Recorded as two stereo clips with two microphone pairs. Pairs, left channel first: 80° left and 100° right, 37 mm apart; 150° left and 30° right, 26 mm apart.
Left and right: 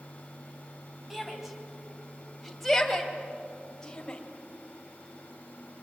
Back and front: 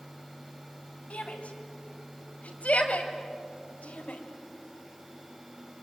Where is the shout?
175° left, 4 m; by 4.2 s 145° left, 3 m.